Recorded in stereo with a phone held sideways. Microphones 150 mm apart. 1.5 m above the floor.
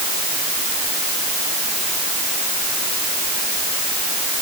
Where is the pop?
No pop in this recording.